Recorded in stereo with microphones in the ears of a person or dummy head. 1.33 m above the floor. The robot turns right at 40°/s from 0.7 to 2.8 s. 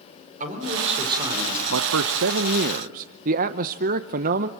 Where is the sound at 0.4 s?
40° right, 4 m; by 1.6 s 5° right, 4 m.